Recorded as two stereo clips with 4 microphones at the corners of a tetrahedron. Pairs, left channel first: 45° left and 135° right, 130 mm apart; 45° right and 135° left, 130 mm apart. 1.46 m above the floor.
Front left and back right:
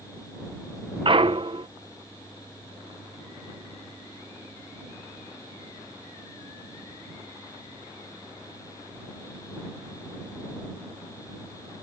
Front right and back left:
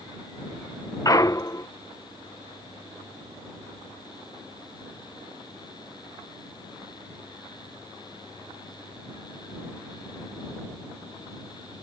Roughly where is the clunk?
Right.